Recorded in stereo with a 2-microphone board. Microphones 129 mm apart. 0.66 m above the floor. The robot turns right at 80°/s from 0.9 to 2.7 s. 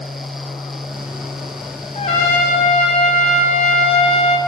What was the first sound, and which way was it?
A trumpet, 60° left.